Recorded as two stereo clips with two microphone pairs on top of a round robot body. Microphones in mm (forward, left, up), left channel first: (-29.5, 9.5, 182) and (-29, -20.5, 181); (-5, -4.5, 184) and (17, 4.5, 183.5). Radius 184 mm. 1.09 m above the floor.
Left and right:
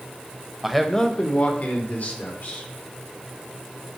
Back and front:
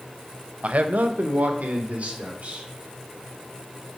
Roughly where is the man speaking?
Ahead.